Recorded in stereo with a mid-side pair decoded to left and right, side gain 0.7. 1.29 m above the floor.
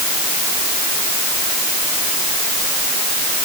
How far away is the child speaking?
No child speaking in this recording.